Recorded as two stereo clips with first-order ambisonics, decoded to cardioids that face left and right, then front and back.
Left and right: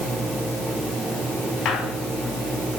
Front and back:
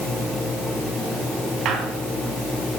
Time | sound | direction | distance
1.6 | a squeak | 130° left | 2 m